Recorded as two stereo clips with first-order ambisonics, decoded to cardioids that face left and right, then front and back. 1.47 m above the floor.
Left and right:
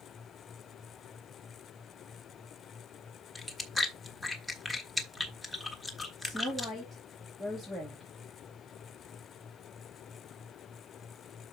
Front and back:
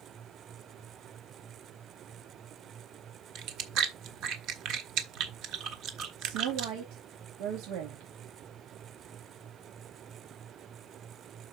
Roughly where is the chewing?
Behind.